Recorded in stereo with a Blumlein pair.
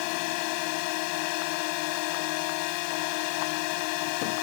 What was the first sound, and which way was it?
A drone, 45° left.